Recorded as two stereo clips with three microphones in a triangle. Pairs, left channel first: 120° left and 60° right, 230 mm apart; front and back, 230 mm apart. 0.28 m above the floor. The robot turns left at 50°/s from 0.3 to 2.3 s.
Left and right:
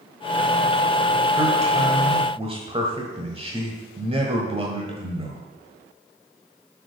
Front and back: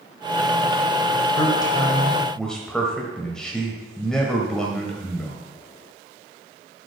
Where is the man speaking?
35° right, 1.3 m; by 5.4 s 85° right, 1.3 m.